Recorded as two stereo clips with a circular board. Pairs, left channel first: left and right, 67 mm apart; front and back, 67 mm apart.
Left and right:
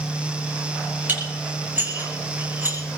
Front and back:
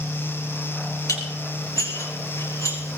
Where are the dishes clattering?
30° right, 5 m.